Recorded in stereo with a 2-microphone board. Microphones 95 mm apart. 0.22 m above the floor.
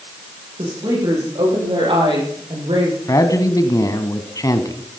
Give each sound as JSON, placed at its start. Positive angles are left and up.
{"t": 0.6, "sound": "a woman speaking", "side_deg": -60, "distance_m": 9.0}
{"t": 3.1, "sound": "a man speaking", "side_deg": 40, "distance_m": 1.4}